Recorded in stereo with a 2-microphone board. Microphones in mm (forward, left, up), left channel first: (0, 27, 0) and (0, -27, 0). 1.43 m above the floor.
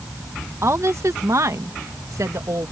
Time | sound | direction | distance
0.6 | a woman speaking | 55° right (ahead or behind) | ?